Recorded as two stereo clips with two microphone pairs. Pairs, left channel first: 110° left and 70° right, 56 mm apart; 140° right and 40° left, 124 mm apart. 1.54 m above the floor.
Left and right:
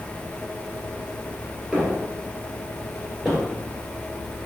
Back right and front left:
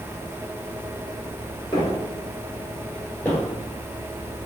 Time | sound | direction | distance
1.7 | footsteps | 135° right | 1.9 m